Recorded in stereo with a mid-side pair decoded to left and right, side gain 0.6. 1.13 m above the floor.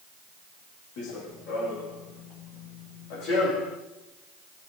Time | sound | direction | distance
1.0 | running footsteps | 70° left | 4.5 m